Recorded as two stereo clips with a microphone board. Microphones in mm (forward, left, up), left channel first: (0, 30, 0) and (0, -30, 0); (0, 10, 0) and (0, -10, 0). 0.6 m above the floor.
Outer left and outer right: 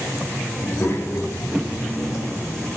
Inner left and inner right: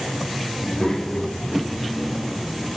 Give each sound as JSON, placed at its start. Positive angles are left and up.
{"t": 0.6, "sound": "a child speaking", "side_deg": 30, "distance_m": 0.8}